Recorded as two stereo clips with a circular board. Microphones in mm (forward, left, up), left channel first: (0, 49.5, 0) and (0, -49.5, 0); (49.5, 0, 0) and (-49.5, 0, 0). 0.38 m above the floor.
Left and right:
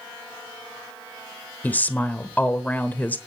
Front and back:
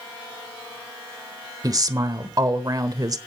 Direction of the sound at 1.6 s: 155° left.